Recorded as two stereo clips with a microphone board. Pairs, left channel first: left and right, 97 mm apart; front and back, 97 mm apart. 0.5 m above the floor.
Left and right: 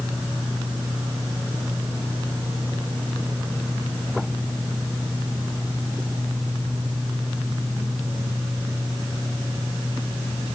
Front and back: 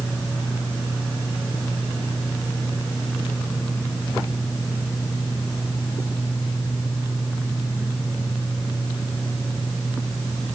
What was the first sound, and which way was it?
Only background noise.